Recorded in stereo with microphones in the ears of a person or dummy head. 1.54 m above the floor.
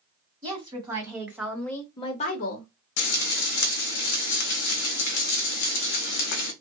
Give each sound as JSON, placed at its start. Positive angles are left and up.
{"t": 0.4, "sound": "a woman speaking", "side_deg": -35, "distance_m": 1.6}
{"t": 3.0, "sound": "frying", "side_deg": 60, "distance_m": 0.7}